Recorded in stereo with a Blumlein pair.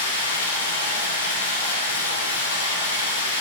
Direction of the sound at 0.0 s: 70° left.